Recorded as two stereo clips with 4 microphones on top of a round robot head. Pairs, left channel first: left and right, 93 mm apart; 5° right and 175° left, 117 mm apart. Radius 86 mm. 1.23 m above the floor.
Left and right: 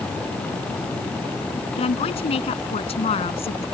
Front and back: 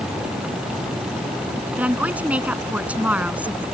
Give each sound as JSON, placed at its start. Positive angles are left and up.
{"t": 1.8, "sound": "a woman speaking", "azimuth_deg": 100}